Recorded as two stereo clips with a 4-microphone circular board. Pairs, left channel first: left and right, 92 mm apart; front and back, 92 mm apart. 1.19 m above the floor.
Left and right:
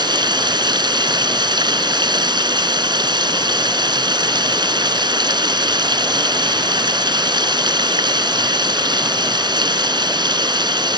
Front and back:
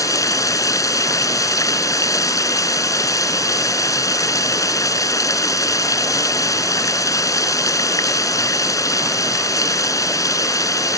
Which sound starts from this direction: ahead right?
Running water, at 0.0 s.